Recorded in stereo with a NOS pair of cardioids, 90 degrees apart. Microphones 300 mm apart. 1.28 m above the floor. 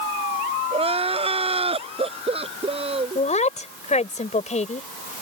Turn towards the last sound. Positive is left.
turn(degrees=25)